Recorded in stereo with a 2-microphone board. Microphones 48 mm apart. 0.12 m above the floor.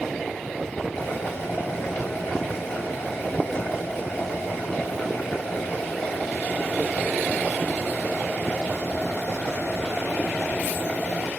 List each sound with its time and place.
0.9 s boiling: 50° left (ahead or behind), 7.5 m